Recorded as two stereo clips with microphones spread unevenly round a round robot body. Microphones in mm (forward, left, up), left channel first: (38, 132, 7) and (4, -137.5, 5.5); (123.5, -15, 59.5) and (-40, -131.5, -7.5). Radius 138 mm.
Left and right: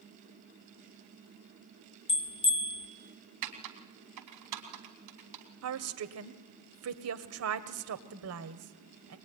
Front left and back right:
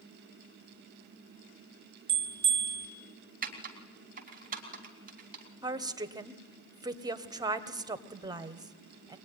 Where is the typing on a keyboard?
115° right, 3.5 m.